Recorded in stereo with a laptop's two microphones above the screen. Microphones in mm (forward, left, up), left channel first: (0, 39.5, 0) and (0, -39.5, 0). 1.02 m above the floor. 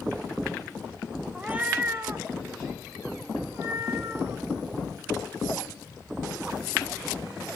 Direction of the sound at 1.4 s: 10° right (ahead or behind).